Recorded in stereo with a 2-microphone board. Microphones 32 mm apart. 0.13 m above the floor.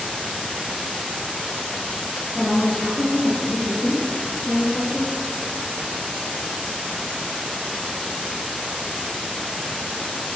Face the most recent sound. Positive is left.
turn(degrees=-10)  # may be behind; listen again after turning